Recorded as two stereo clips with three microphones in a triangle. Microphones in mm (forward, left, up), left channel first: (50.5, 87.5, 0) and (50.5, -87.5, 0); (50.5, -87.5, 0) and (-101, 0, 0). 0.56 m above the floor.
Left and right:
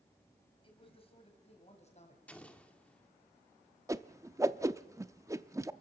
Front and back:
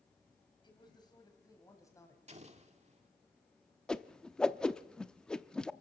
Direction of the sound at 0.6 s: 30° left.